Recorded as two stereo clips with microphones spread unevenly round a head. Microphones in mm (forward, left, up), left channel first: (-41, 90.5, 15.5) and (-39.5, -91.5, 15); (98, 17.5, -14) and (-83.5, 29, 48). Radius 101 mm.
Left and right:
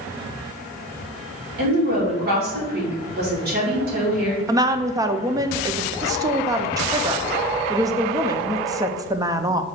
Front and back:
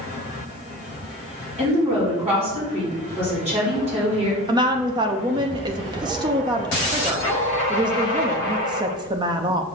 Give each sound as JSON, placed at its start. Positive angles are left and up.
{"t": 1.6, "sound": "a woman speaking", "azimuth_deg": -125, "distance_m": 3.5}
{"t": 4.5, "sound": "a woman speaking", "azimuth_deg": -155, "distance_m": 0.6}